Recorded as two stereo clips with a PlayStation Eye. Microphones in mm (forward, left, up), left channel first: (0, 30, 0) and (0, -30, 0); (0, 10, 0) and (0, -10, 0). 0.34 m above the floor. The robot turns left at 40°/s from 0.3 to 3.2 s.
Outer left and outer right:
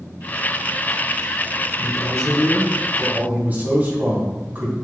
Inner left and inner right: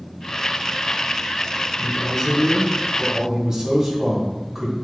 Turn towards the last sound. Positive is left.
turn(degrees=-40)